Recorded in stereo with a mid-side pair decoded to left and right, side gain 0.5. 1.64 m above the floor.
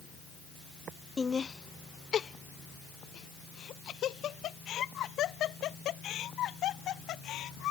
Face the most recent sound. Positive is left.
turn(degrees=70)